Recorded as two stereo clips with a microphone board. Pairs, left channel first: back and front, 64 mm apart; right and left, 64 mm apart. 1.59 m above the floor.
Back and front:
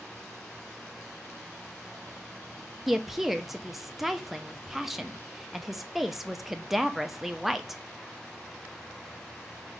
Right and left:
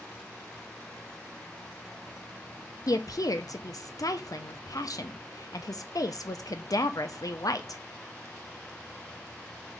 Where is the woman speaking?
85° right, 0.8 m.